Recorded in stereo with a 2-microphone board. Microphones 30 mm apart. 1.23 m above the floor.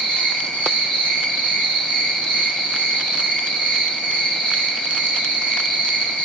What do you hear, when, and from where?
0.0 s an insect: 80° left, 1.4 m